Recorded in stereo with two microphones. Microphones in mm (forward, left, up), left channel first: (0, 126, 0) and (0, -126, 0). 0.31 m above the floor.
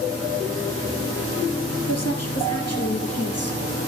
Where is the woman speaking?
80° left, 5.5 m; by 3.6 s 70° left (ahead or behind), 6 m.